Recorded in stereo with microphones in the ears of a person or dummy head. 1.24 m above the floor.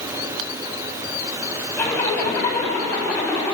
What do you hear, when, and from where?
1.8 s a zipper: 10° left (ahead or behind), 7 m